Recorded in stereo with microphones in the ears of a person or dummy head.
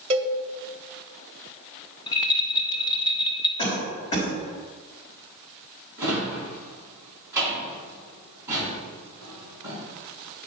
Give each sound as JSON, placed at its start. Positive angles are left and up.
{"t": 0.1, "sound": "a cowbell", "side_deg": -35, "distance_m": 0.9}
{"t": 2.1, "sound": "a rattle", "side_deg": 25, "distance_m": 0.7}
{"t": 3.6, "sound": "a cough", "side_deg": 30, "distance_m": 4.0}
{"t": 6.0, "sound": "a drawer", "side_deg": -10, "distance_m": 4.0}